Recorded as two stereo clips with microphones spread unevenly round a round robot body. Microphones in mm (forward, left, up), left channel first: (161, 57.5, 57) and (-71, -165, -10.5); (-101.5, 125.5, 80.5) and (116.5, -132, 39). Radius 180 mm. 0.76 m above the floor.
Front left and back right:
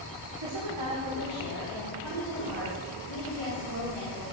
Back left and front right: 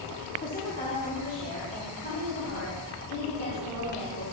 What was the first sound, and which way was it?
A woman speaking, 160° right.